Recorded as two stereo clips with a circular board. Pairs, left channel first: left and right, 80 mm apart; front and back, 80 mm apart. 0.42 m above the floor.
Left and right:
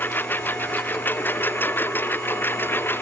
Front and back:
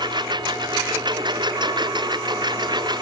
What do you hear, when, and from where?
0.0 s a lawn mower: 155° left